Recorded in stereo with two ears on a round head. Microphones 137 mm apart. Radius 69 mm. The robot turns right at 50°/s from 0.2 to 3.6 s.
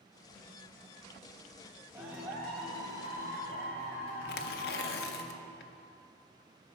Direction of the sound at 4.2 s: 75° left (ahead or behind).